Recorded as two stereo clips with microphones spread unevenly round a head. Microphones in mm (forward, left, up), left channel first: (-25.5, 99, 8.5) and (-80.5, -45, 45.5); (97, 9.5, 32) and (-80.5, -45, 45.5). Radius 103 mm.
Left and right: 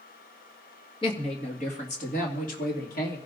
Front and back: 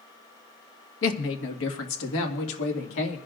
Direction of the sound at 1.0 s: 5° left.